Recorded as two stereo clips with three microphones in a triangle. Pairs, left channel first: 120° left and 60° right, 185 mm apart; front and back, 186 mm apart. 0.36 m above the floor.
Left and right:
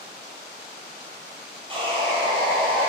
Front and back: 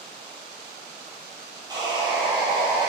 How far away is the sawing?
About 2.5 m.